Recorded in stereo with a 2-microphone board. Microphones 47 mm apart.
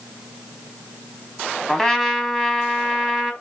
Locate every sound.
1.7 s a trumpet: 5° left (ahead or behind), 1.0 m